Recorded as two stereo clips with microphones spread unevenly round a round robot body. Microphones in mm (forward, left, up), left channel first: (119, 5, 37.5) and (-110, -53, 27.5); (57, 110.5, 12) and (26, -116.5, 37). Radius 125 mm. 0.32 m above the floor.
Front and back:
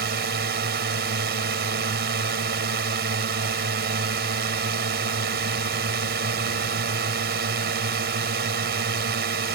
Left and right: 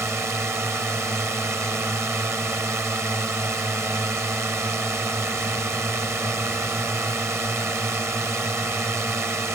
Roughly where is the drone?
Behind.